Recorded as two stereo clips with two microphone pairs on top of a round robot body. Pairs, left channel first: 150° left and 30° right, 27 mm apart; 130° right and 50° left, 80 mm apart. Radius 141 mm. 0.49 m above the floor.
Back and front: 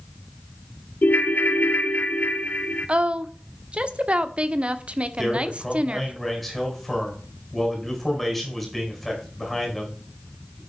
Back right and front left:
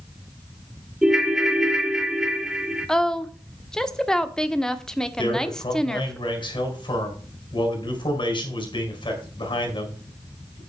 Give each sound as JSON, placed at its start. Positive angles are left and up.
{"t": 1.0, "sound": "a ringtone", "azimuth_deg": 135, "distance_m": 1.1}
{"t": 2.9, "sound": "a woman speaking", "azimuth_deg": -50, "distance_m": 1.6}
{"t": 5.2, "sound": "a man speaking", "azimuth_deg": -120, "distance_m": 4.5}